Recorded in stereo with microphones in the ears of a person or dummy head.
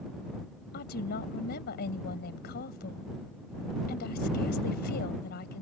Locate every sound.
0.7 s a woman speaking: 45° left (ahead or behind)